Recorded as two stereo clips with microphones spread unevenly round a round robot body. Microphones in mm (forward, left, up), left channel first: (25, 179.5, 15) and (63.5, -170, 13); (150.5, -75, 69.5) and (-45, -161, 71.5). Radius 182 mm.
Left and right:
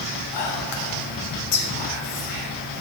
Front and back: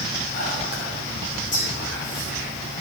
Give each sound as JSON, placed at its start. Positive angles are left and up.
{"t": 0.3, "sound": "whispering", "azimuth_deg": 85, "distance_m": 3.0}